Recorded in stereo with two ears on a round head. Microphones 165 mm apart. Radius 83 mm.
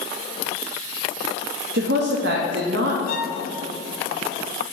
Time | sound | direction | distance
1.7 | a woman speaking | 65° right (ahead or behind) | 0.7 m
3.1 | a violin | 50° left (ahead or behind) | 1.4 m